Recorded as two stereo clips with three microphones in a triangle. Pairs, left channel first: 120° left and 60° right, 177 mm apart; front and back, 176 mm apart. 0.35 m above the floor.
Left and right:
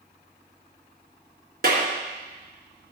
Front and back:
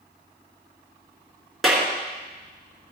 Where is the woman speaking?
I don't hear a woman speaking.